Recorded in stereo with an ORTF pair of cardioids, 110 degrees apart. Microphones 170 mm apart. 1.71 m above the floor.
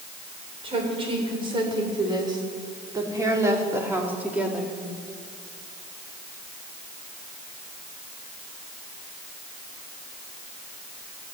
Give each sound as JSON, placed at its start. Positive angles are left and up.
{"t": 0.6, "sound": "a woman speaking", "azimuth_deg": -35, "distance_m": 7.5}